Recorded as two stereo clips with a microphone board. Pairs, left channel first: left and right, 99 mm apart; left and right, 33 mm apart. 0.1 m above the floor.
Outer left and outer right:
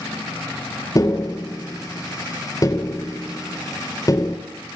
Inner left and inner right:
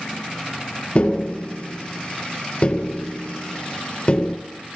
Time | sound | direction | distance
0.9 | tapping | 35° left (ahead or behind) | 1.7 m